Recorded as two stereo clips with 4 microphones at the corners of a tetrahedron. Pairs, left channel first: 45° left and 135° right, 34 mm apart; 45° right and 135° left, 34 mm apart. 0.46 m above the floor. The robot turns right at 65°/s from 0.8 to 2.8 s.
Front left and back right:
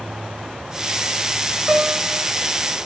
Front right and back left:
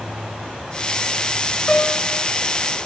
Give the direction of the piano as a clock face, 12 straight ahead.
3 o'clock.